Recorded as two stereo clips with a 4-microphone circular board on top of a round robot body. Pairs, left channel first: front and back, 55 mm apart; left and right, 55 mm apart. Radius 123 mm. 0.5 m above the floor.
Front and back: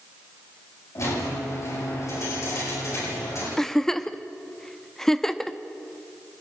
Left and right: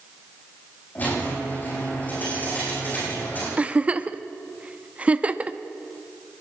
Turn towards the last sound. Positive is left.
turn(degrees=-70)